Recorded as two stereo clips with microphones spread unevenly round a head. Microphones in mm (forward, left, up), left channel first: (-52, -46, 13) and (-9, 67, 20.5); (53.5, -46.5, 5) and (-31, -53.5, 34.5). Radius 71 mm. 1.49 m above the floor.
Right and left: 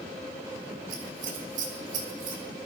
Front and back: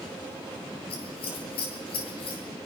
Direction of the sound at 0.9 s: 35° left.